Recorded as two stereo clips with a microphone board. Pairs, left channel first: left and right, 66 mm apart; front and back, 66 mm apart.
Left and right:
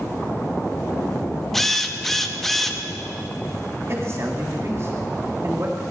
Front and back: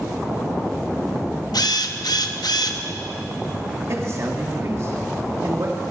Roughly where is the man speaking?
Behind right.